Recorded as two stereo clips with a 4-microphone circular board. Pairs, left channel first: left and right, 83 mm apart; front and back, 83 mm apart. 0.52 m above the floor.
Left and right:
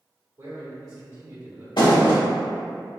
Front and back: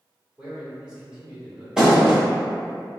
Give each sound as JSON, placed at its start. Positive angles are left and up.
{"t": 0.4, "sound": "a man speaking", "azimuth_deg": -105, "distance_m": 1.6}
{"t": 1.8, "sound": "a thud", "azimuth_deg": 100, "distance_m": 1.0}